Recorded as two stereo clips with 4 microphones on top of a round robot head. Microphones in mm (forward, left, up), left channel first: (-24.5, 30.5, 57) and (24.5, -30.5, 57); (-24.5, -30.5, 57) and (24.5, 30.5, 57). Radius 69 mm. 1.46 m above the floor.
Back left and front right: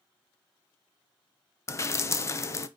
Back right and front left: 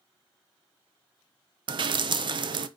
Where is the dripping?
75° left, 0.8 m.